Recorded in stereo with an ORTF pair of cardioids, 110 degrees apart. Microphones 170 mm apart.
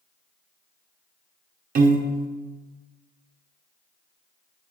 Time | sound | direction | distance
1.8 | a piano | 55° right | 0.8 m